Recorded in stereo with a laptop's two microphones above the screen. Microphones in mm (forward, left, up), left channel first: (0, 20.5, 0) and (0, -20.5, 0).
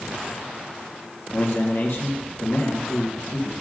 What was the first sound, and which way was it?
A man speaking, 70° left (ahead or behind).